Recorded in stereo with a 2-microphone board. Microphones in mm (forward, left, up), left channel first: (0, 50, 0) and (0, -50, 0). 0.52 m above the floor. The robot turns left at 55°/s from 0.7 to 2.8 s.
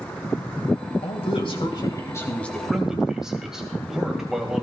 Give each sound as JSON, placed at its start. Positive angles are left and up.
{"t": 1.0, "sound": "a man speaking", "azimuth_deg": 90, "distance_m": 2.5}